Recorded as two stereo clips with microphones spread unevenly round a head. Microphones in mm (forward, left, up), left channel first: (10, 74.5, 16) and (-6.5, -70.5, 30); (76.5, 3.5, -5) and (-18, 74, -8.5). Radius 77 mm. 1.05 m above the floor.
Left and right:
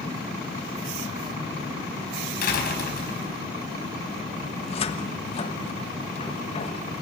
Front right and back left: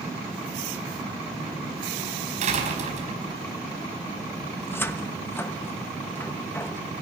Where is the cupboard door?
35° left, 1.2 m.